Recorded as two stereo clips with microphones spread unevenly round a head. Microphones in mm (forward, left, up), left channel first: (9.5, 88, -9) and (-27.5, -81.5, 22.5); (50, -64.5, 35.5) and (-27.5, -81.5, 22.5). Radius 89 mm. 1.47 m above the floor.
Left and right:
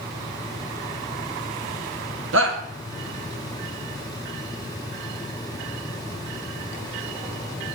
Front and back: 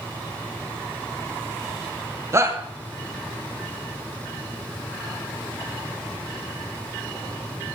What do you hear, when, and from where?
2.3 s a shout: 110° right, 2 m